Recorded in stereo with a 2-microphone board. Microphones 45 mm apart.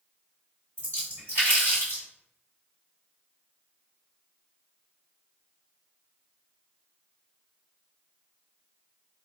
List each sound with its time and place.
0.8 s a splash: 75° right (ahead or behind), 2.0 m